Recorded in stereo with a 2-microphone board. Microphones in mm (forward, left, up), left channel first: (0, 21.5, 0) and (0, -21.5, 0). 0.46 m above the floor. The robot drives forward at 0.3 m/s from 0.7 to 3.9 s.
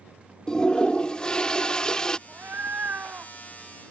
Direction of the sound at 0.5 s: 20° left (ahead or behind).